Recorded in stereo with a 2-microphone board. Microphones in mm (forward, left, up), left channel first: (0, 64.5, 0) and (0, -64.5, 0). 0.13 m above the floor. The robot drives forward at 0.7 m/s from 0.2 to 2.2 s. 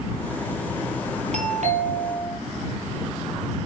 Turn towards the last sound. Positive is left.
turn(degrees=-65)  # may be behind; listen again after turning